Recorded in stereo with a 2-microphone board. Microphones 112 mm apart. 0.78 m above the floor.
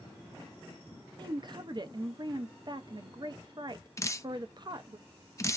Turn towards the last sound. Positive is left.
turn(degrees=30)  # may be behind; listen again after turning